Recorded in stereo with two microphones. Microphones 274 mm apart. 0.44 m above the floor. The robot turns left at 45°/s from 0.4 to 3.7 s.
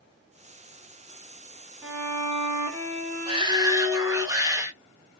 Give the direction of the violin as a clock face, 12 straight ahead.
12 o'clock.